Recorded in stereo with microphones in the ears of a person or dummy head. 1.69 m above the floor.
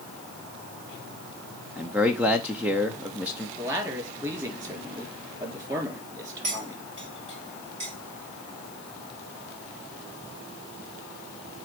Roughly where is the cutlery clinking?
Right.